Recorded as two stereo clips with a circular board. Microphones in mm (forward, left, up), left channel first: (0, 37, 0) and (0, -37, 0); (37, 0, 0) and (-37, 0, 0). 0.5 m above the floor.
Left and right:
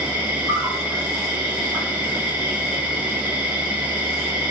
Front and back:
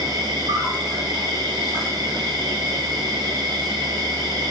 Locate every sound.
0.0 s an insect: 165° right, 1.3 m